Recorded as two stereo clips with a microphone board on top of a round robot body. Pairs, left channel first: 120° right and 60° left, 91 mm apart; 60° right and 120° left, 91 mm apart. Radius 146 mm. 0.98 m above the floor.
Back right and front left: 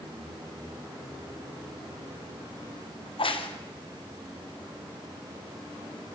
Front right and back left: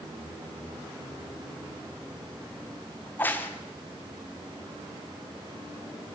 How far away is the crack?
About 3 m.